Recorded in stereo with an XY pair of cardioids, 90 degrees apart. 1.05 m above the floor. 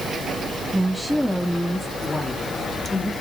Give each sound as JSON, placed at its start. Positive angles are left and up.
{"t": 0.7, "sound": "a woman speaking", "azimuth_deg": -5, "distance_m": 1.8}